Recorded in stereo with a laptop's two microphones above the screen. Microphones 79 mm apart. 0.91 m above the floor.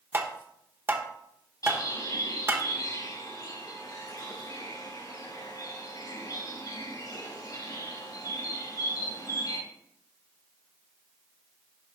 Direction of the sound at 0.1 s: 30° right (ahead or behind).